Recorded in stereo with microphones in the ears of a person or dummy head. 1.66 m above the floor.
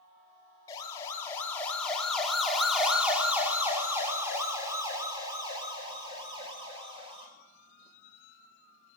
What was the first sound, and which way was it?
A siren, 25° left (ahead or behind).